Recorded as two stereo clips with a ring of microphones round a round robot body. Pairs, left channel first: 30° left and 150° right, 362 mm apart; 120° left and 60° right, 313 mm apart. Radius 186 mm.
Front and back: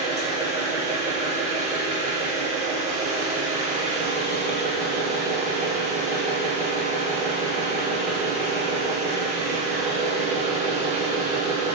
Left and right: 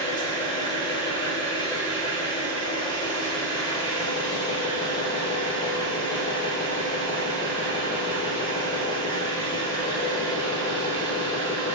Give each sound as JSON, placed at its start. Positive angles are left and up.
{"t": 0.0, "sound": "an engine running", "azimuth_deg": 170, "distance_m": 0.9}